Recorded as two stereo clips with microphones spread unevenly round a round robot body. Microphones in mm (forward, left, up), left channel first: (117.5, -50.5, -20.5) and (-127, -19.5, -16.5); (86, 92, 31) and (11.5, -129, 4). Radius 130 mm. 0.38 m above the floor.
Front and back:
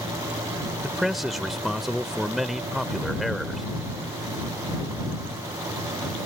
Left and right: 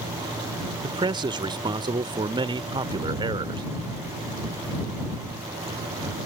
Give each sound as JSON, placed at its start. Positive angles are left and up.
{"t": 0.8, "sound": "a man speaking", "azimuth_deg": -100}